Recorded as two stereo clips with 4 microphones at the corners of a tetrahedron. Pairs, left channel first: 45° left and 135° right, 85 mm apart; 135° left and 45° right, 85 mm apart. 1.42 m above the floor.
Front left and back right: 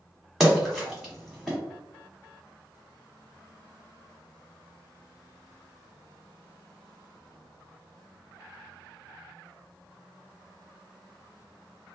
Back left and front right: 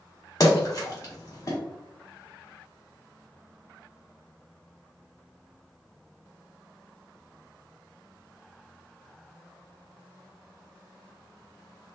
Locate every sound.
0.4 s a splash: 140° left, 1.2 m